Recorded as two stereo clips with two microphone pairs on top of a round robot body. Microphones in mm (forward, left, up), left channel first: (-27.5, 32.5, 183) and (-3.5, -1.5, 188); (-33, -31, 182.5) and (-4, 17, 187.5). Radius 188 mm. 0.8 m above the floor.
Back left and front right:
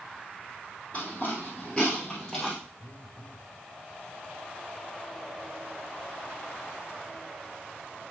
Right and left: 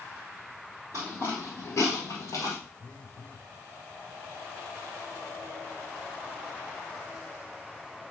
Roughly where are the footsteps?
Ahead left.